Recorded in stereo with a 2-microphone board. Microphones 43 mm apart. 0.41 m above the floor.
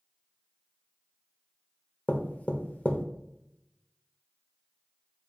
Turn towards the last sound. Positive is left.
turn(degrees=35)  # may be behind; listen again after turning